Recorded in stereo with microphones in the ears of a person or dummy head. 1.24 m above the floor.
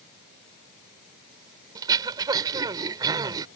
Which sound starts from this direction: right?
Throat clearing, at 1.8 s.